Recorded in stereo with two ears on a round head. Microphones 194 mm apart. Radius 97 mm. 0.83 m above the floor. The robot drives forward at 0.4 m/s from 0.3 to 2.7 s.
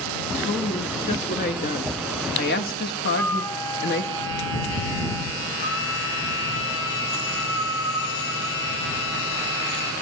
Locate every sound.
0.4 s a woman speaking: 35° left (ahead or behind), 1.8 m; by 4.1 s 50° left (ahead or behind), 1.4 m
3.1 s a flute: 15° left (ahead or behind), 0.6 m
5.6 s a violin: 50° left (ahead or behind), 0.9 m